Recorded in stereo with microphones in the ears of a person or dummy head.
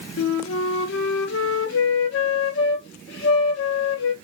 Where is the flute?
65° left (ahead or behind), 0.7 m.